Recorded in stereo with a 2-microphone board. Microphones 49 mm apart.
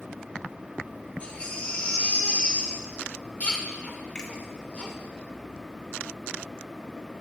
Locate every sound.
1.2 s a baby crying: 25° left (ahead or behind), 1.4 m
4.2 s a finger snap: 20° left (ahead or behind), 1.7 m